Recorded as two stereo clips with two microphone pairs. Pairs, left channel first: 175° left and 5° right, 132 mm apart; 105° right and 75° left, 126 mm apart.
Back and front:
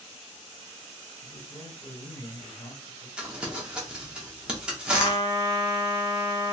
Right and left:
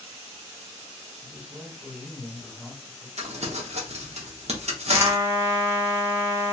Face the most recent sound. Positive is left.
turn(degrees=140)